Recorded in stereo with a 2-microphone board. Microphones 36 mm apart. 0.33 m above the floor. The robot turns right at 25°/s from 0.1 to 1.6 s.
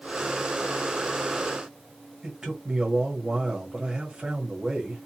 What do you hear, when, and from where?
2.2 s a man speaking: 20° right (ahead or behind), 1.3 m